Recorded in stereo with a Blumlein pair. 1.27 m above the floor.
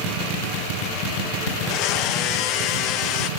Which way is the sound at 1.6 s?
40° left.